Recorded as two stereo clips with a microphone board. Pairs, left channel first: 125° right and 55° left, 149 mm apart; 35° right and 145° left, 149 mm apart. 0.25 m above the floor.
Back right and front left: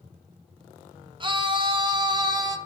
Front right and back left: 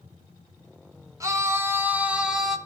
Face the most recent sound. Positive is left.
turn(degrees=55)